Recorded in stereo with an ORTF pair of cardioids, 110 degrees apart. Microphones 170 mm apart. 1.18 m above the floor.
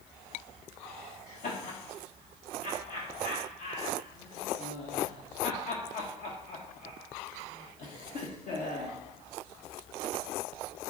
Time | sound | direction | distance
1.3 | laughter | 45° left | 1.0 m